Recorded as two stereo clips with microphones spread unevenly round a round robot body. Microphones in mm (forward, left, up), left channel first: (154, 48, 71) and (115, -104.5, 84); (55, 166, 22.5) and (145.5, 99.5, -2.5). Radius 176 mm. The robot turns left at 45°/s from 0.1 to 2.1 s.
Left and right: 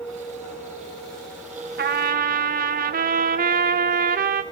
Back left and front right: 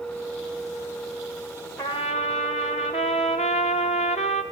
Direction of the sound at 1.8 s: 135° right.